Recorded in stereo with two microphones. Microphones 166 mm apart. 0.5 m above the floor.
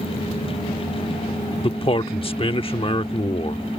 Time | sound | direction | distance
1.6 | a man speaking | 35° left (ahead or behind) | ?